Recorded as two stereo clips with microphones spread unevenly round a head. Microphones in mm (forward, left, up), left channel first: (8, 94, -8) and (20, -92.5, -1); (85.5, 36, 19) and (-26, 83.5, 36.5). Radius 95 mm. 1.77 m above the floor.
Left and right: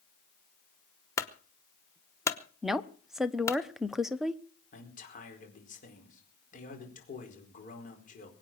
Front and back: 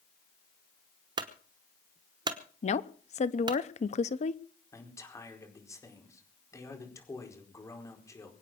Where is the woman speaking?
Straight ahead, 0.9 m.